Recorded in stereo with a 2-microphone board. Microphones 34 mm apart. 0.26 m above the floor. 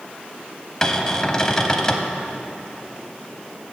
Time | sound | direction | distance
0.8 | a cupboard door | 20° left (ahead or behind) | 0.6 m